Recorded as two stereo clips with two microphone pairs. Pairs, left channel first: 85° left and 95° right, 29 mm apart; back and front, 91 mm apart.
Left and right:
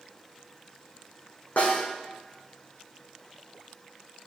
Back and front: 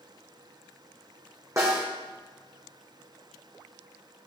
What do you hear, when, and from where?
1.6 s a snare drum: 55° left, 2.5 m